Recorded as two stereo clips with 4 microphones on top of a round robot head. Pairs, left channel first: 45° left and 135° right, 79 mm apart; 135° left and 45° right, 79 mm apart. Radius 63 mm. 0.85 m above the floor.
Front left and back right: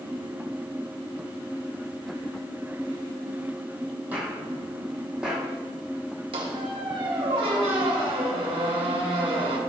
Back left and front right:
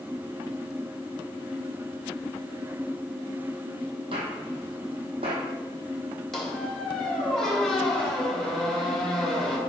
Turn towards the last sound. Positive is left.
turn(degrees=-140)